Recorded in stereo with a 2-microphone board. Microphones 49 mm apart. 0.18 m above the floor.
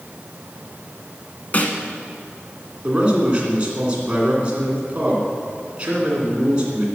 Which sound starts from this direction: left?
A snare drum, at 1.5 s.